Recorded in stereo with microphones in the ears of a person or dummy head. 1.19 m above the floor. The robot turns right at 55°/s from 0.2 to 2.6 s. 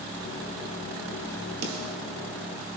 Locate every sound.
1.6 s a snare drum: 60° right (ahead or behind), 2.5 m; by 2.0 s 40° right (ahead or behind), 2.5 m